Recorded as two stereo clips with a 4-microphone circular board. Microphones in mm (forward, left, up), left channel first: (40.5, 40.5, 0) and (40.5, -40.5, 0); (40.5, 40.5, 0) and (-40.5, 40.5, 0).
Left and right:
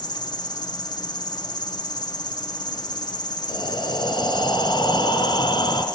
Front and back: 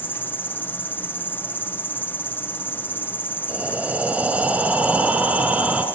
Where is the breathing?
110° left, 3.5 m.